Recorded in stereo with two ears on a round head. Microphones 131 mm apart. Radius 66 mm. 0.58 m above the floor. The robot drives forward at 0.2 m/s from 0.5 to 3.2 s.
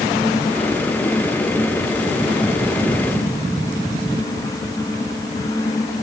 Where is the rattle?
No rattle in this recording.